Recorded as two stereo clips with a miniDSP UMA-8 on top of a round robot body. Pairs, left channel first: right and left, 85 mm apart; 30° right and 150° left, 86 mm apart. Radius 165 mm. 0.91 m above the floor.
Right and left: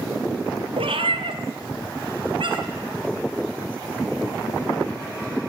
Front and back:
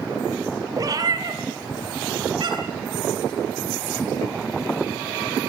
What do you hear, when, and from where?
0.8 s a cat meowing: 100° left, 3 m; by 2.8 s 115° left, 4 m